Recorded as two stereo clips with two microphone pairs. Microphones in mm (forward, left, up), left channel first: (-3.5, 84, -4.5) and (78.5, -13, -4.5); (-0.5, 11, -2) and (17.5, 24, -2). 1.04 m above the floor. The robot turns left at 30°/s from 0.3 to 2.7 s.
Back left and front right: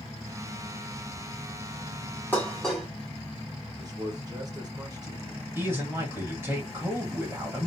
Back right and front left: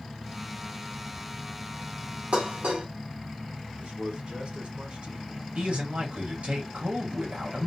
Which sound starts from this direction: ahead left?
Dishes clattering, at 2.3 s.